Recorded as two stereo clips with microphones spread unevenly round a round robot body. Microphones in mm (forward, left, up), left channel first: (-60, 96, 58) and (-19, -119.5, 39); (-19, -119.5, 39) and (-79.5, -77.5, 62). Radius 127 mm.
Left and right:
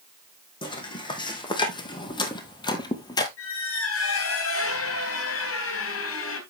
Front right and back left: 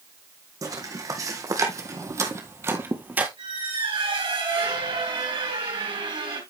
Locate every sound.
0.6 s footsteps: 170° left, 2.5 m; by 3.3 s 155° left, 1.0 m
3.4 s a squeak: 125° left, 3 m